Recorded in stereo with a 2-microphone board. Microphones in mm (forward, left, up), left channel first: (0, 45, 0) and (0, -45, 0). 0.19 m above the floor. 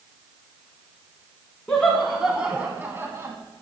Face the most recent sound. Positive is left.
turn(degrees=-35)  # may be behind; listen again after turning